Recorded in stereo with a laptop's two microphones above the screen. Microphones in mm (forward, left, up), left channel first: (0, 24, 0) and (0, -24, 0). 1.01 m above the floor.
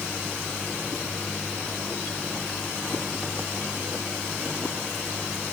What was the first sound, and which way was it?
Only background noise.